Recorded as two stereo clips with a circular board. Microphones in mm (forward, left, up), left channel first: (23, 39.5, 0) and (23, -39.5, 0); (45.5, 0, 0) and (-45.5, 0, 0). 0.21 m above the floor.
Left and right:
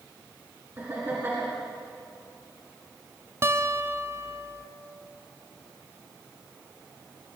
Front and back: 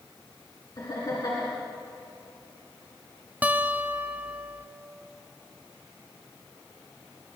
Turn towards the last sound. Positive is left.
turn(degrees=-120)